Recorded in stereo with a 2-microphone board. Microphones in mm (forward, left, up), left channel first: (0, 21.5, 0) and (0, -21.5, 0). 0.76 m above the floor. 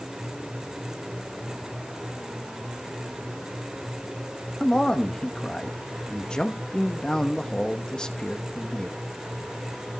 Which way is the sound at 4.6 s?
15° left (ahead or behind).